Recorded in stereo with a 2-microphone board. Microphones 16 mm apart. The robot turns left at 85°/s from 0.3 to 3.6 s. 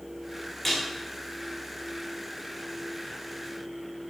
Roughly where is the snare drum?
Centre.